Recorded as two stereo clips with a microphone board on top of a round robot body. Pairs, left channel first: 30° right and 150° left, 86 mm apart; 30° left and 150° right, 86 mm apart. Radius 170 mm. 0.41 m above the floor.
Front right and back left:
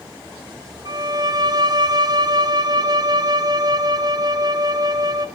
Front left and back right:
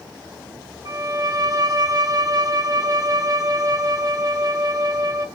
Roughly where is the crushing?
No crushing in this recording.